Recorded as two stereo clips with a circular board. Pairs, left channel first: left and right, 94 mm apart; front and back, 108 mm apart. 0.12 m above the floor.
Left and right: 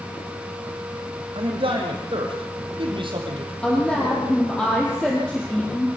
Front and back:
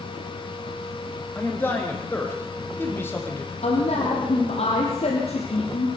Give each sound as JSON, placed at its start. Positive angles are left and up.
{"t": 1.4, "sound": "a man speaking", "azimuth_deg": -70, "distance_m": 6.0}
{"t": 3.6, "sound": "a woman speaking", "azimuth_deg": 10, "distance_m": 3.5}